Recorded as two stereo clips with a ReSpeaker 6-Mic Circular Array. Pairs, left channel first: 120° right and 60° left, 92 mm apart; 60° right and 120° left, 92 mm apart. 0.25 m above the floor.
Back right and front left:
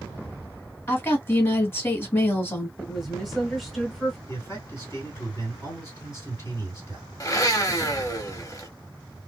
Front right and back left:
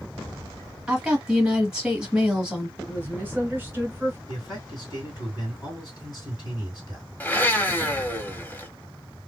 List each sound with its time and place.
0.9 s a woman speaking: 165° right, 1.1 m
2.8 s a woman speaking: 145° left, 1.1 m
4.3 s a man speaking: 70° right, 2.5 m
7.2 s a blender: 115° right, 0.6 m